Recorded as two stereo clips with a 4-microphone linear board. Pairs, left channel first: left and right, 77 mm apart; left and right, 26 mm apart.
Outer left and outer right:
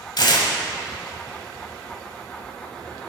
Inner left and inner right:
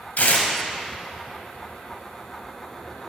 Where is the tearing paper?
70° left (ahead or behind), 1.4 m.